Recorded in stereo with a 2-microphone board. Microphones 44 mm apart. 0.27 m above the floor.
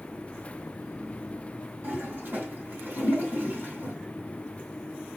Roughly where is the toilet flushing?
Right.